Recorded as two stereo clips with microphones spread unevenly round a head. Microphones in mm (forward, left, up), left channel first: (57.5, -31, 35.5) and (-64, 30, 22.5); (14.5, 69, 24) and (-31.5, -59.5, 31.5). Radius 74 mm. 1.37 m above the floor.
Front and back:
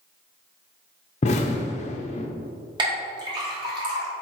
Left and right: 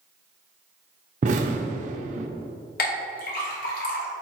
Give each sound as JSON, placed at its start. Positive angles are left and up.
{"t": 1.2, "sound": "an explosion", "azimuth_deg": -70, "distance_m": 0.6}
{"t": 2.8, "sound": "a clink", "azimuth_deg": 90, "distance_m": 1.5}